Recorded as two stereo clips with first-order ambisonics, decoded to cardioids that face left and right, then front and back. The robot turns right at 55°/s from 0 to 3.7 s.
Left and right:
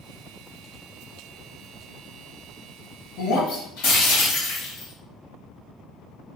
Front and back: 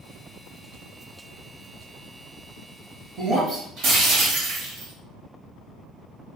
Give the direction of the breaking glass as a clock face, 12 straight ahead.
9 o'clock.